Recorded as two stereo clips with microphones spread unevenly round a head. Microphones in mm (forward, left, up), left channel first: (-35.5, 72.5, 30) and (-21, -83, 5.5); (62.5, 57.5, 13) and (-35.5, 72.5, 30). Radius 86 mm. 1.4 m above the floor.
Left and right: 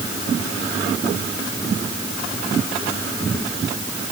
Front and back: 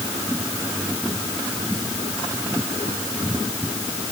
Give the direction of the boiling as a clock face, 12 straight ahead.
I don't hear boiling.